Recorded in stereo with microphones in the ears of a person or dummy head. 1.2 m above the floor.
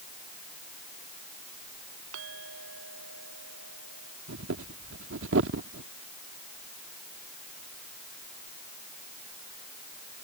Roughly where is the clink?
Right.